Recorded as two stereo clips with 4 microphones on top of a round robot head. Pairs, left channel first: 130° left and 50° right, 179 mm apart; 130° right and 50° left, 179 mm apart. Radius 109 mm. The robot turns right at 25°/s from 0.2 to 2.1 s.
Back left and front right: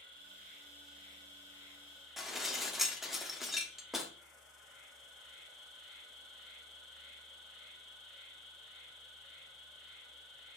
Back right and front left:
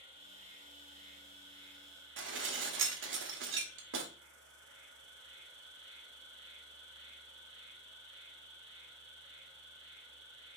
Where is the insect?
10° right, 3 m; by 10.6 s 40° left, 3 m.